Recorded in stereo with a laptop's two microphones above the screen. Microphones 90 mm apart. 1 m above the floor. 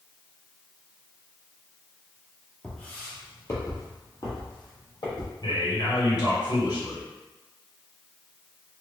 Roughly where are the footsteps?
Centre.